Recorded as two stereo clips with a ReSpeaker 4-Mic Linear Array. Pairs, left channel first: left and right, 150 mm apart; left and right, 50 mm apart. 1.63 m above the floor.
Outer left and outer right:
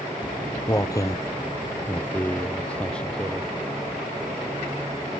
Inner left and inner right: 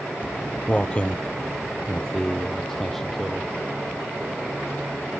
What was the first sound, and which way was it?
Footsteps, 30° left (ahead or behind).